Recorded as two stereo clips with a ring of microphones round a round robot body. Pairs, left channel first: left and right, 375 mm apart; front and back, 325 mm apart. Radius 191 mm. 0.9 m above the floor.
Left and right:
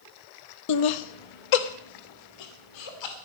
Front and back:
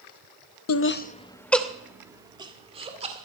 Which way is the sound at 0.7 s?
45° left.